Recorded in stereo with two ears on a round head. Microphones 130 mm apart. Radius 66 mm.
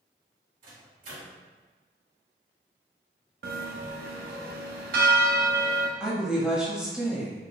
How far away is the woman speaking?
About 0.8 m.